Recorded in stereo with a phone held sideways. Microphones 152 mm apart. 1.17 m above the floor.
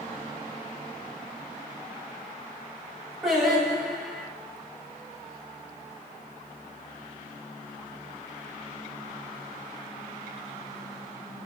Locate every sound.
3.2 s singing: centre (ahead or behind), 3.5 m